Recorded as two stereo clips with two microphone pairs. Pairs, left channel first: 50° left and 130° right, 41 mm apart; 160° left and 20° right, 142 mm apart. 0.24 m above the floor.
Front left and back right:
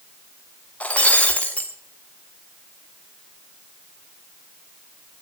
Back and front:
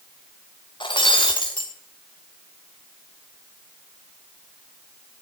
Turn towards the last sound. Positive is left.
turn(degrees=105)